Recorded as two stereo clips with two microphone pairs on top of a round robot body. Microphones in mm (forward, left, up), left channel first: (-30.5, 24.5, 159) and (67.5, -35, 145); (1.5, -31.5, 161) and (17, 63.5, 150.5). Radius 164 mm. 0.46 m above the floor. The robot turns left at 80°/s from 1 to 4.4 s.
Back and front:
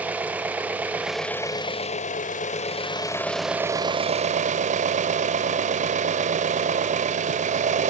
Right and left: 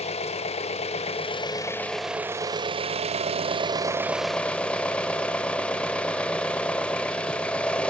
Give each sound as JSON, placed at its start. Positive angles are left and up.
{"t": 0.0, "sound": "an engine running", "azimuth_deg": -110, "distance_m": 0.8}